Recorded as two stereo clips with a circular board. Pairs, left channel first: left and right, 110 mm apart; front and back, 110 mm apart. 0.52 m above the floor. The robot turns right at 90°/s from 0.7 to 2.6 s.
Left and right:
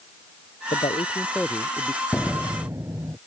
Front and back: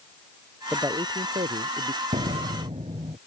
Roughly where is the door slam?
Behind.